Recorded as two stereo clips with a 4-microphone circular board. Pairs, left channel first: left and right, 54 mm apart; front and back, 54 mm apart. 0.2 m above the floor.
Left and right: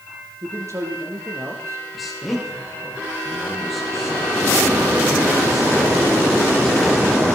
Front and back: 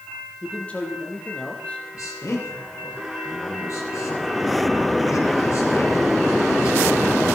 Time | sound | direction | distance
0.4 | a man speaking | 65° right | 5 m
1.9 | a man speaking | straight ahead | 8 m